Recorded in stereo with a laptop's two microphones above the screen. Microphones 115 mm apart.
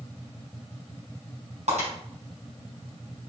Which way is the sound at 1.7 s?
85° right.